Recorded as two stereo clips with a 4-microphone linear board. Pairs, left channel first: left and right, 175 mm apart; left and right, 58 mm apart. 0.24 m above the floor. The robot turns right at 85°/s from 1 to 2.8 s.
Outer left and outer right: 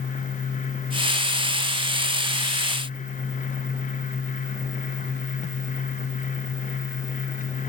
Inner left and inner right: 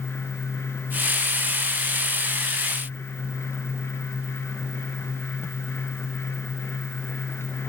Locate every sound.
Only background noise.